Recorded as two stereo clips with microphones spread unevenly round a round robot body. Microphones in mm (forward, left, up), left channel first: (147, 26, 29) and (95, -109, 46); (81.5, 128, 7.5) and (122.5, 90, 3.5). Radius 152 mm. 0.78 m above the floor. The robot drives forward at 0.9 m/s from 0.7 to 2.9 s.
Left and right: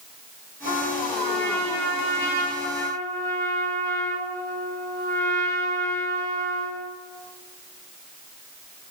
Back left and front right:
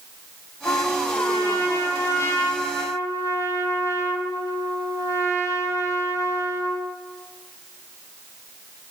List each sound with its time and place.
0.7 s a trumpet: 105° left, 7.5 m; by 6.9 s 120° left, 8 m